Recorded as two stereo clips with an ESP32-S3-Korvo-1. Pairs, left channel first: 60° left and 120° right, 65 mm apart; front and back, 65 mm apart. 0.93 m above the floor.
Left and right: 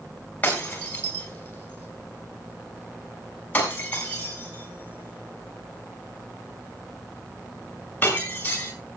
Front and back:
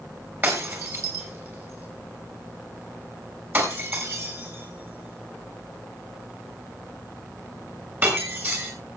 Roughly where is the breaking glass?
Behind left.